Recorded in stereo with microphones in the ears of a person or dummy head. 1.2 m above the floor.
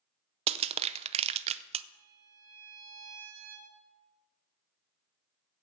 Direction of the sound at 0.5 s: 30° right (ahead or behind).